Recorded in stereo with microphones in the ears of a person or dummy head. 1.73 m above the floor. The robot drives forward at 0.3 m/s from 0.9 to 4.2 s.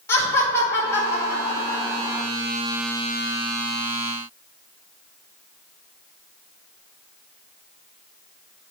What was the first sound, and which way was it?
Laughter, 15° left (ahead or behind).